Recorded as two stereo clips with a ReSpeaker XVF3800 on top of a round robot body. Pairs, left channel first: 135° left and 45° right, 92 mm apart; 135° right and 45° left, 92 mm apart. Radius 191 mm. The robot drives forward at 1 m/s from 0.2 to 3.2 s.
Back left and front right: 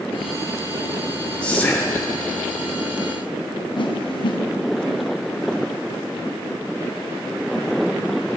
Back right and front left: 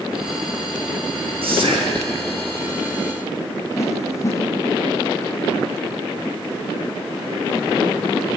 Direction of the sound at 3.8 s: 165° left.